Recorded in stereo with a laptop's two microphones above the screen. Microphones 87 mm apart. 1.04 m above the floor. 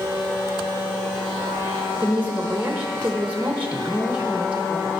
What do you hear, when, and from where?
2.0 s a woman speaking: 20° right (ahead or behind), 0.9 m